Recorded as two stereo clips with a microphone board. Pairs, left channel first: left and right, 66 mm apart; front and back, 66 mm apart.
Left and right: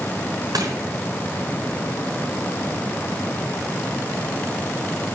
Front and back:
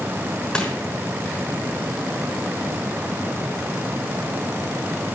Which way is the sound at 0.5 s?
75° right.